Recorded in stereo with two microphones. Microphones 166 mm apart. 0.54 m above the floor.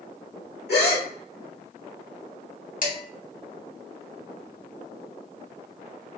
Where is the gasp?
85° left, 1.0 m.